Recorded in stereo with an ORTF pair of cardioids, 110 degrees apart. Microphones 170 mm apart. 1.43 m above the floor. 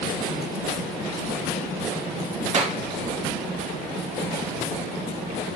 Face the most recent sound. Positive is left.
turn(degrees=-45)